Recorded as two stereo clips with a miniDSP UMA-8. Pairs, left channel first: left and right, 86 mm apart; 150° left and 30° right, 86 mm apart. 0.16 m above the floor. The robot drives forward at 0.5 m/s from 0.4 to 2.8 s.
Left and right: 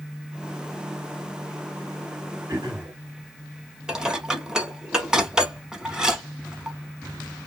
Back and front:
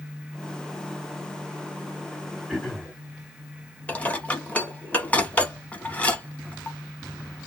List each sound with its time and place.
2.5 s throat clearing: 125° right, 2.5 m; by 2.9 s 130° right, 2.5 m
3.9 s dishes clattering: 160° right, 0.7 m